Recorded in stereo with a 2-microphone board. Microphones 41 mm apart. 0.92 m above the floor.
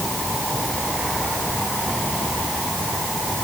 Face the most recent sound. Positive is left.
No sound to turn to.